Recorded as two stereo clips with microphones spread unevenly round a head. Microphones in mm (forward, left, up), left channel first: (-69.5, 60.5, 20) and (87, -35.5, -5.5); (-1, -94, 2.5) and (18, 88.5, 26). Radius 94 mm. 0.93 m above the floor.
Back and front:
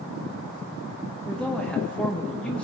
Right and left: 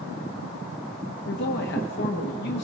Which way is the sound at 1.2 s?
120° right.